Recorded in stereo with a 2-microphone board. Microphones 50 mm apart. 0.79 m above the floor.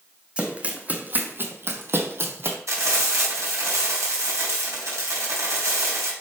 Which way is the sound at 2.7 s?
75° right (ahead or behind).